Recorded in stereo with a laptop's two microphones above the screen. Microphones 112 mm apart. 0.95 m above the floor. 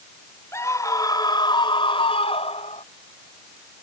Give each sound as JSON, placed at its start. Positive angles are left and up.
{"t": 0.5, "sound": "a scream", "side_deg": 25}